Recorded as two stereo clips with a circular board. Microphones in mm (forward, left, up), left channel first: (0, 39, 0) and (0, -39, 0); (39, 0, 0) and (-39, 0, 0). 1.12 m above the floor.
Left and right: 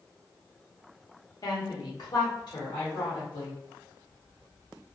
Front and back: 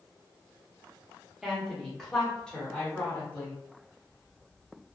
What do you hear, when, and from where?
1.4 s a woman speaking: 95° left, 1.0 m; by 3.6 s 75° left, 2.0 m